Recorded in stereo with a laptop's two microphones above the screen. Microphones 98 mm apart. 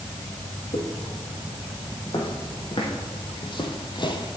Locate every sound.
0.7 s footsteps: 65° left (ahead or behind), 3.5 m; by 4.4 s 50° left (ahead or behind), 1.7 m